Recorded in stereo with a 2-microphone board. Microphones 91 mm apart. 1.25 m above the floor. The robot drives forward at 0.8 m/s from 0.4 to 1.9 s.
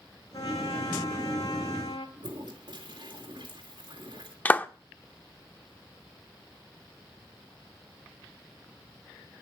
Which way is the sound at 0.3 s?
65° left (ahead or behind).